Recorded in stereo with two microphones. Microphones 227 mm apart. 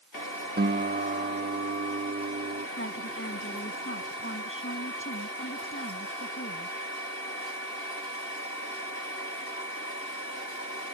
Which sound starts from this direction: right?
A guitar, at 0.6 s.